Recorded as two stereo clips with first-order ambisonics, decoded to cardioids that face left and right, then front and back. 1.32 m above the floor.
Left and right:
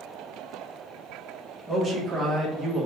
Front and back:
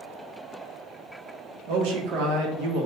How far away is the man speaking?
About 1.0 m.